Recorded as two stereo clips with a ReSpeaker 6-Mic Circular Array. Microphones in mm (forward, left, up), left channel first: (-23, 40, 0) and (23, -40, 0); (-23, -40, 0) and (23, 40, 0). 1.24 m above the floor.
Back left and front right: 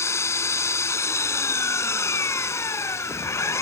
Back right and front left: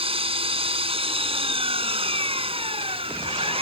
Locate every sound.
0.0 s an engine running: 60° left